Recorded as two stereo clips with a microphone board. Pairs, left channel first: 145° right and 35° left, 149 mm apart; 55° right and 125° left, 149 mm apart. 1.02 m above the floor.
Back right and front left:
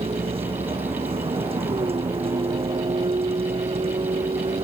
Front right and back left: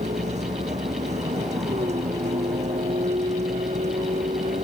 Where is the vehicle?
85° left.